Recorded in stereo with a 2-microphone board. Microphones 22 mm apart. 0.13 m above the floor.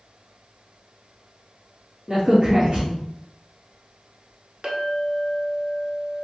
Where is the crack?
35° right (ahead or behind), 1.6 m.